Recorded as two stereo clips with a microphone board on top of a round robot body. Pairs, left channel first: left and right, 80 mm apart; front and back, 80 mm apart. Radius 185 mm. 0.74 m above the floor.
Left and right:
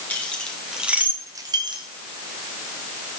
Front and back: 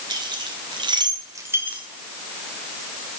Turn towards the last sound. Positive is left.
turn(degrees=-105)